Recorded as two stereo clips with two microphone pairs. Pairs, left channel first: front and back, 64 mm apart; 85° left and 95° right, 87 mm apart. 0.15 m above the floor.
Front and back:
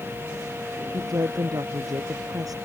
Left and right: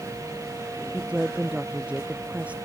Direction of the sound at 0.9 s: 170° right.